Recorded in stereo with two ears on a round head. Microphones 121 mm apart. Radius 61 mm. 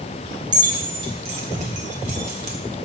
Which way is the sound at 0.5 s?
30° right (ahead or behind).